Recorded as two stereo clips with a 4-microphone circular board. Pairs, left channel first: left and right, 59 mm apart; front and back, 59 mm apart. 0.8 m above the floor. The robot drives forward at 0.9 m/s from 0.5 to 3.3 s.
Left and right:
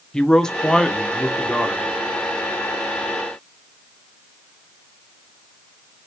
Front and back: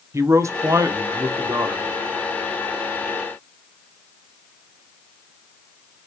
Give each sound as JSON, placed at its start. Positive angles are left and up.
{"t": 0.1, "sound": "a man speaking", "azimuth_deg": 165, "distance_m": 1.1}